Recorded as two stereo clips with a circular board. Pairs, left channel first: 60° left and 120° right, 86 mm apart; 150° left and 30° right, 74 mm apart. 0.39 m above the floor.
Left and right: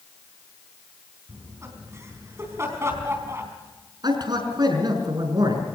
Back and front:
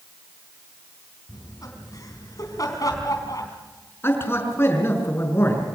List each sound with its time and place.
1.3 s laughter: 175° right, 3.5 m
4.0 s a man speaking: 155° right, 5.5 m